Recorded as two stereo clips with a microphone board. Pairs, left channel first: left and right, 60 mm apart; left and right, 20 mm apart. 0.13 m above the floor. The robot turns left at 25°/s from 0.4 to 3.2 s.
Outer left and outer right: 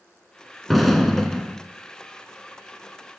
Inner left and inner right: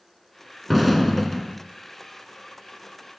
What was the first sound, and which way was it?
An explosion, centre (ahead or behind).